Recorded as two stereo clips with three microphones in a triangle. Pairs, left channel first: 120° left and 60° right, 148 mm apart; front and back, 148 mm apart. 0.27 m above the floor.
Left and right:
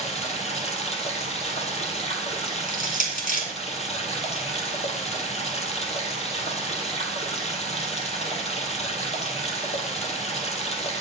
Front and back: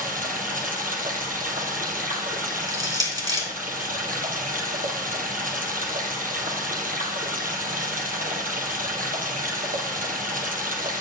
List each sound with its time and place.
0.0 s running water: 160° left, 2 m
2.7 s crushing: 120° left, 3 m